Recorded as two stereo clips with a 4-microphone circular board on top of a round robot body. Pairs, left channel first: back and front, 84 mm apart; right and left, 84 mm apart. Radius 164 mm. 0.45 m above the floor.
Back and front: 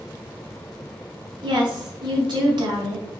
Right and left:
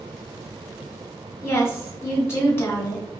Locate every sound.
1.4 s a woman speaking: 30° right, 2.5 m